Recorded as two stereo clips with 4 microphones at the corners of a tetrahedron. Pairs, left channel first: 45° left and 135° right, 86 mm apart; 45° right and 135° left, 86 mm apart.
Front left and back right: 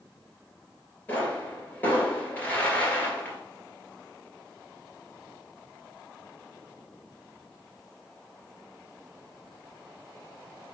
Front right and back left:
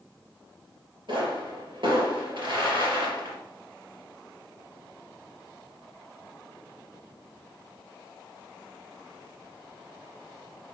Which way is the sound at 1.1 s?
115° left.